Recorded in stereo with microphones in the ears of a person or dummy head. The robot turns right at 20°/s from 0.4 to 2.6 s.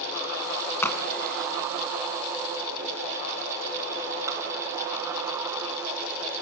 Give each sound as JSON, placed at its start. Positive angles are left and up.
{"t": 0.8, "sound": "a crack", "side_deg": 15, "distance_m": 3.0}